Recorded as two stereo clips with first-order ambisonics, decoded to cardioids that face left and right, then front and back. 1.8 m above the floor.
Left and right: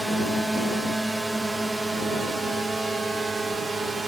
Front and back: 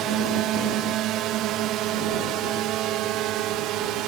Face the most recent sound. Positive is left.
turn(degrees=-165)